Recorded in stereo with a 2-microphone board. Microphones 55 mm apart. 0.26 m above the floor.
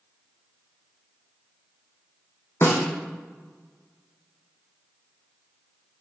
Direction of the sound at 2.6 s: 55° left (ahead or behind).